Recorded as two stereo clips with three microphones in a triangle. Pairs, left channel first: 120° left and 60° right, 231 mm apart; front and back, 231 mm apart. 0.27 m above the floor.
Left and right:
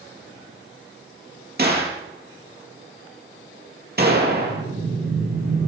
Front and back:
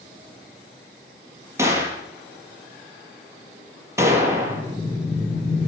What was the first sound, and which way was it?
A gunshot, 105° right.